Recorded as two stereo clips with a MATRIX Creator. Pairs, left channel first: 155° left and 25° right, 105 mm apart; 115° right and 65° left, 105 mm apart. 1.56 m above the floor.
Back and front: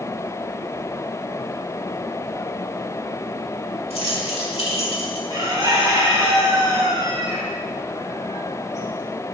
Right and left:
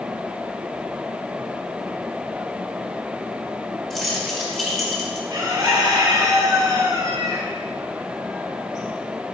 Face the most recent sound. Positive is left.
turn(degrees=20)